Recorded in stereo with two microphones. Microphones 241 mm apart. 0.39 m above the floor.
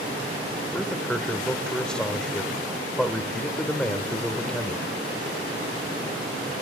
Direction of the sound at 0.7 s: 5° left (ahead or behind).